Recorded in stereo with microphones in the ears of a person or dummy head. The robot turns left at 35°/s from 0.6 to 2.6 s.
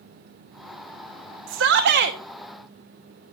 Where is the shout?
75° right (ahead or behind), 0.9 m; by 2.2 s 50° right (ahead or behind), 0.9 m.